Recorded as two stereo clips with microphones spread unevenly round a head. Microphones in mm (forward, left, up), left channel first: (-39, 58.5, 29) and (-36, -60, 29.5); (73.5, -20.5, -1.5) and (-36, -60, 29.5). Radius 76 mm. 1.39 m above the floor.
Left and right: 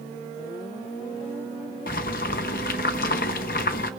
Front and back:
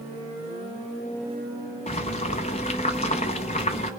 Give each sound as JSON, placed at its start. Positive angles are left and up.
{"t": 1.9, "sound": "boiling", "azimuth_deg": 75, "distance_m": 0.8}